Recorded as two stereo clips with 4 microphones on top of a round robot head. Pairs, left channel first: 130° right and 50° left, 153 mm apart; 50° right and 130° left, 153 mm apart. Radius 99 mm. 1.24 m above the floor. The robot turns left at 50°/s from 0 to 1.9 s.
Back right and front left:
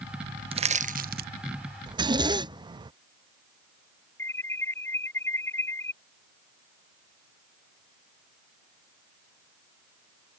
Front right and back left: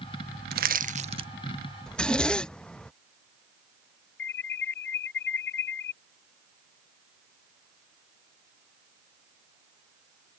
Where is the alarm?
50° right.